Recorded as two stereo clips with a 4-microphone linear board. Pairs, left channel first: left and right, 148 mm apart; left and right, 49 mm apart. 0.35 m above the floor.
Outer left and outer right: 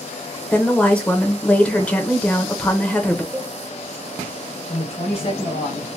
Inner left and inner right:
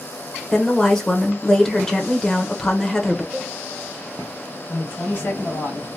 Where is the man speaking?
45° left (ahead or behind), 2.0 m.